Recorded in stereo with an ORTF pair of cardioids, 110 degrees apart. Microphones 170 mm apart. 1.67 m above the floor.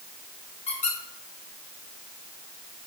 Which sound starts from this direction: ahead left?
A squeak, at 0.7 s.